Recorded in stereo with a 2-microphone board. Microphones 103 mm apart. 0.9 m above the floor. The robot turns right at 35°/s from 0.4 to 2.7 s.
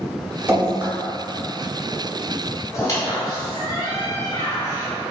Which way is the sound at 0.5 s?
20° right (ahead or behind).